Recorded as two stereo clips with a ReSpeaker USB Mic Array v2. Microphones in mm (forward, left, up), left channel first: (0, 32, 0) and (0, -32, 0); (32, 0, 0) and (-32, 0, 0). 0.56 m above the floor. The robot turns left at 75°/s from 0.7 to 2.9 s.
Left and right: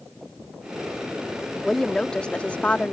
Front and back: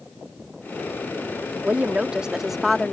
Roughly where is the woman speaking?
Behind.